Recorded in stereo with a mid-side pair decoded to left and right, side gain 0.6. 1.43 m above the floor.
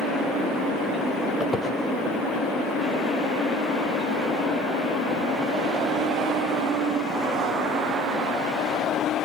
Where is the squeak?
25° left, 5 m.